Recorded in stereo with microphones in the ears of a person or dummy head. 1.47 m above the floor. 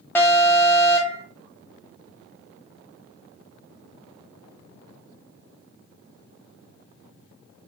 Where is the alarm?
10° left (ahead or behind), 0.7 m.